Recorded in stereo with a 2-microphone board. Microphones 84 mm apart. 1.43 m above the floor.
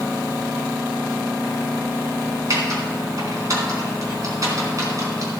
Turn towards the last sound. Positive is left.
turn(degrees=-45)  # may be behind; listen again after turning